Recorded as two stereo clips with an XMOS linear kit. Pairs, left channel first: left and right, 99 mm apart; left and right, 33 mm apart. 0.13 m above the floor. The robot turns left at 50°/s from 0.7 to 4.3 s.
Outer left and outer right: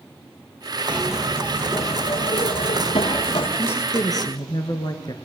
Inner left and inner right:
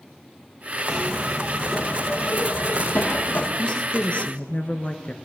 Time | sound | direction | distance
0.9 | a zipper | 165° right | 4 m
3.6 | a woman speaking | 155° left | 1.8 m